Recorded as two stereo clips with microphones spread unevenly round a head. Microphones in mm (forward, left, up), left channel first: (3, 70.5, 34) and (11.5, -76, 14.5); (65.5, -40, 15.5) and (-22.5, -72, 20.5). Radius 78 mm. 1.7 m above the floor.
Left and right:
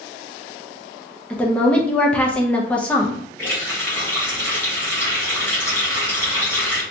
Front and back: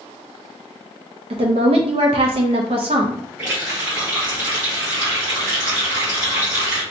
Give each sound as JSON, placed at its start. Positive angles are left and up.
{"t": 1.3, "sound": "a woman speaking", "azimuth_deg": 170, "distance_m": 0.6}
{"t": 3.4, "sound": "a running tap", "azimuth_deg": 150, "distance_m": 1.1}